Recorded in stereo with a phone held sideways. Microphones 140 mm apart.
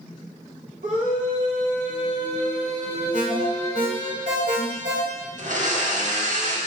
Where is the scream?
70° right (ahead or behind), 2.5 m; by 4.1 s 30° right (ahead or behind), 2.5 m.